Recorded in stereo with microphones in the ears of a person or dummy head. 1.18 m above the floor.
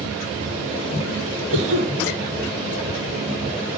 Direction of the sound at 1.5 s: 80° right.